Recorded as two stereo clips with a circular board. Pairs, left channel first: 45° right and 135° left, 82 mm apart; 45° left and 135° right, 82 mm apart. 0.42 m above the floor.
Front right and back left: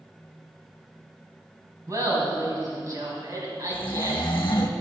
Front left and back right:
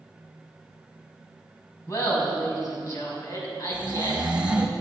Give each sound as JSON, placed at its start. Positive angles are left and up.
{"t": 1.9, "sound": "laughter", "azimuth_deg": 90, "distance_m": 3.0}
{"t": 3.7, "sound": "snoring", "azimuth_deg": -60, "distance_m": 1.0}